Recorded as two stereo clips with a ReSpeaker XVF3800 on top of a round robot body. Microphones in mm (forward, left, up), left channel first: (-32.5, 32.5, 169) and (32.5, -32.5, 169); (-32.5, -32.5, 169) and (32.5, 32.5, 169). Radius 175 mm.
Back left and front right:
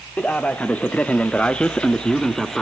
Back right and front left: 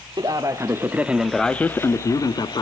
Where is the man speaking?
60° left, 1.3 m; by 2.6 s 140° right, 1.4 m.